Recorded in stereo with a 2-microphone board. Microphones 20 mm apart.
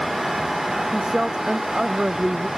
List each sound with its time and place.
0.9 s a woman speaking: 40° right (ahead or behind); by 2.5 s 35° right (ahead or behind)